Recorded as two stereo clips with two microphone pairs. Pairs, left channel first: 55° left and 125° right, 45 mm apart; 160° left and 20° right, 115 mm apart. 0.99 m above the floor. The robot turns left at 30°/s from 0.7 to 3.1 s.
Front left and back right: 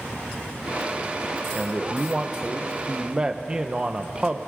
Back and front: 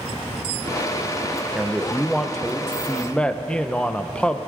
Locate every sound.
1.6 s a man speaking: 85° right, 0.6 m; by 4.4 s 135° right, 0.6 m